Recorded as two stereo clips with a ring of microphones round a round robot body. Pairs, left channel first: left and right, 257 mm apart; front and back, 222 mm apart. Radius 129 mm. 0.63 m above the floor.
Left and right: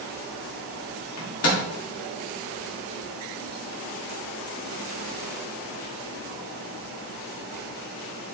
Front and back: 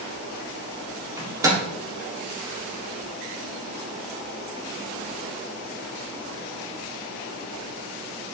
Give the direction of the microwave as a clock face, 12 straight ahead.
8 o'clock.